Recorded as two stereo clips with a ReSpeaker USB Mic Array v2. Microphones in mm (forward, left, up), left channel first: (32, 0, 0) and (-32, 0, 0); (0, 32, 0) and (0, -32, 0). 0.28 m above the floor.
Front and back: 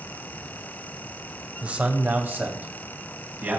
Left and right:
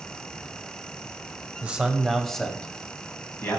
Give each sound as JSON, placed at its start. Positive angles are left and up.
{"t": 1.6, "sound": "a man speaking", "azimuth_deg": -140, "distance_m": 1.6}